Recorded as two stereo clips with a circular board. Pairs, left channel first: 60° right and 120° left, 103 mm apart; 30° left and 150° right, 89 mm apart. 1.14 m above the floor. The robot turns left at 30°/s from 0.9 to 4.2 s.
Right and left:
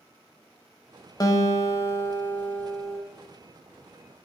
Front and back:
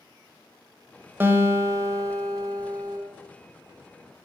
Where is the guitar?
95° right, 1.2 m; by 3.0 s 150° right, 1.2 m.